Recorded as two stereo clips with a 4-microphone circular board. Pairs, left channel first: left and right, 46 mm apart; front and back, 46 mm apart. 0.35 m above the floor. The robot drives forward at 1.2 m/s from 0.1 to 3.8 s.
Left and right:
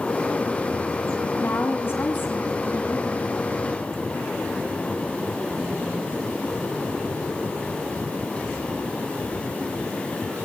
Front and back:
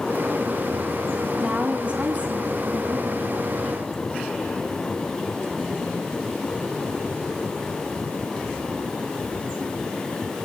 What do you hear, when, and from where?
1.4 s a woman speaking: 115° left, 2.5 m; by 3.3 s 145° left, 4 m